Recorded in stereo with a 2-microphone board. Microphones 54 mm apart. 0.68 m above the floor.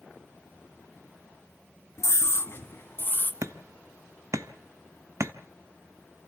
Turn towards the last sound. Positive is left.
turn(degrees=-65)  # may be behind; listen again after turning